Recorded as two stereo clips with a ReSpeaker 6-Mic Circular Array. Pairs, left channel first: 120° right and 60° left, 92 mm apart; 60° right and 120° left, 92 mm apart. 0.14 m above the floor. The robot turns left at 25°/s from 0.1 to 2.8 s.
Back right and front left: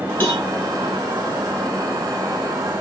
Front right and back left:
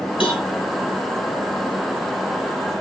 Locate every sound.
0.2 s a cowbell: 55° right, 2 m; by 0.5 s 60° right, 2 m